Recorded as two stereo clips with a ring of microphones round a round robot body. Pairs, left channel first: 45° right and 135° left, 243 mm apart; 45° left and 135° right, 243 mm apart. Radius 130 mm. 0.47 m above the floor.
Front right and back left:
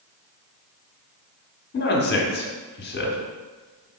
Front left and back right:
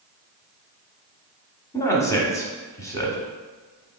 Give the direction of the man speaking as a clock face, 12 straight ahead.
1 o'clock.